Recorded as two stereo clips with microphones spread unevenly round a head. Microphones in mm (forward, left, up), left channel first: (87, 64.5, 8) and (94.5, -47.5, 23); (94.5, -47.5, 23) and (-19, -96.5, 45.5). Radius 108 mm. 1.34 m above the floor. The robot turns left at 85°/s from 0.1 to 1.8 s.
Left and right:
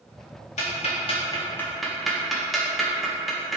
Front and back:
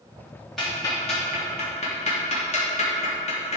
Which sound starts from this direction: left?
Ticking, at 0.6 s.